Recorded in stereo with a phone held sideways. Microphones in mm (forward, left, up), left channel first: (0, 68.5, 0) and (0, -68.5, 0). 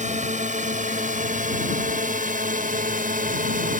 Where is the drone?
65° right (ahead or behind); by 3.8 s 85° right.